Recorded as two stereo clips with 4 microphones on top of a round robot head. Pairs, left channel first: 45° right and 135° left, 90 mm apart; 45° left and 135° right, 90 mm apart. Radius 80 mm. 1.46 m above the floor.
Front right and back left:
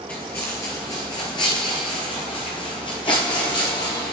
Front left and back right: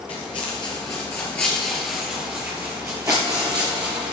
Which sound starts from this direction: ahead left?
Footsteps, at 0.1 s.